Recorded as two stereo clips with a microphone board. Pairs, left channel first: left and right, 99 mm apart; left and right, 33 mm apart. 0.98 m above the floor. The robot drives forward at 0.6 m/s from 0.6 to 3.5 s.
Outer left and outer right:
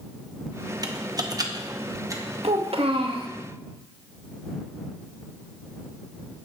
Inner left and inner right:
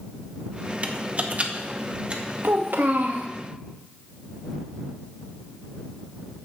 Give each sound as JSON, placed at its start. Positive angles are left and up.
{"t": 0.8, "sound": "typing on a keyboard", "side_deg": -35, "distance_m": 0.9}
{"t": 2.4, "sound": "a child speaking", "side_deg": -75, "distance_m": 1.1}